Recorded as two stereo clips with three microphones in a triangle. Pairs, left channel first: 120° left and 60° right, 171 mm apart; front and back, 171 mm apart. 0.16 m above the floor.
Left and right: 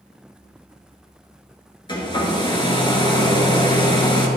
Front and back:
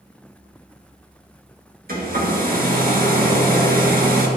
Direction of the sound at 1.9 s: 175° left.